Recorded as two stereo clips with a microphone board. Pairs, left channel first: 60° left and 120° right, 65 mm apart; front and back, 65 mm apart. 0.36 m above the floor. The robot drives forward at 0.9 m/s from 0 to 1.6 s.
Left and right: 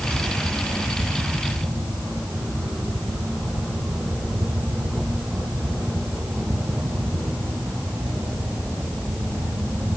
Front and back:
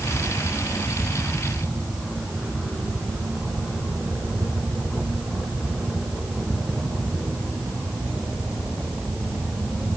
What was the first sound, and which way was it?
Only background noise.